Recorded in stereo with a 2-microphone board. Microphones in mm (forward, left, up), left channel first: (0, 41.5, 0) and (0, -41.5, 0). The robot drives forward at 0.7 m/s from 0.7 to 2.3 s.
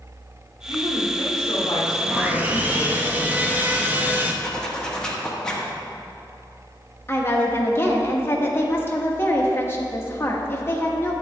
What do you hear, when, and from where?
0.7 s a woman speaking: 70° left (ahead or behind), 2.5 m; by 3.1 s 55° left (ahead or behind), 3 m
2.1 s sawing: 25° right (ahead or behind), 0.6 m; by 4.3 s 20° right (ahead or behind), 0.7 m
4.4 s a zipper: 10° left (ahead or behind), 1.1 m
7.1 s a woman speaking: 30° left (ahead or behind), 1.1 m